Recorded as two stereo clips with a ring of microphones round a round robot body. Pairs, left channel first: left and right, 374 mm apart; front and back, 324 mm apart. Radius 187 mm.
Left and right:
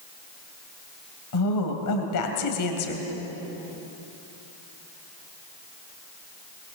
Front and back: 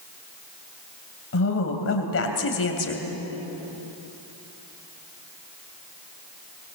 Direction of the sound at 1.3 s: 50° left.